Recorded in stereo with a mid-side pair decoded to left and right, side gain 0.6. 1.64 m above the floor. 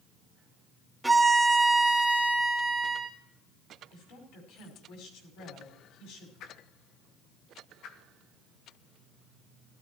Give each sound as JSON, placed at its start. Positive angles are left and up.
{"t": 1.0, "sound": "a violin", "azimuth_deg": -5, "distance_m": 2.5}
{"t": 3.9, "sound": "a woman speaking", "azimuth_deg": 70, "distance_m": 5.5}
{"t": 6.4, "sound": "a whoosh", "azimuth_deg": 60, "distance_m": 1.7}